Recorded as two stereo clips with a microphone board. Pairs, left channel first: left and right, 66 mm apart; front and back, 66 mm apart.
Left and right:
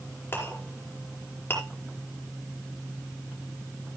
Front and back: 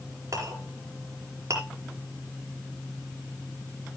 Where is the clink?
145° left, 5 m.